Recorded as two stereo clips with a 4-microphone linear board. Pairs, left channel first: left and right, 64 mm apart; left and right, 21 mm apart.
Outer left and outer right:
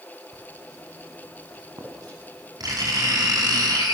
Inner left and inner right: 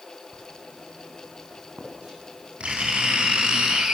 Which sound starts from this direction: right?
Writing, at 0.3 s.